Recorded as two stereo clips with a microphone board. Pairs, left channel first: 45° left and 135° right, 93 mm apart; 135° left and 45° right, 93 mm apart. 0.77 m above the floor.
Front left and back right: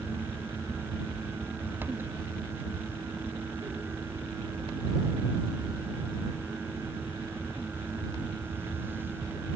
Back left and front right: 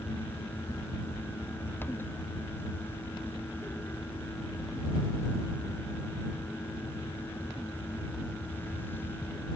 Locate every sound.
Only background noise.